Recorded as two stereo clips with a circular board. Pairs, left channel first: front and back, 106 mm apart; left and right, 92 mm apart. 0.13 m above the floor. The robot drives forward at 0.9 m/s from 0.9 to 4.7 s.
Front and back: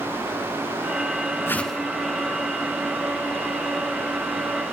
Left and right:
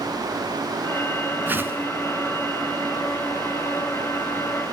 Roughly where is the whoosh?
Ahead right.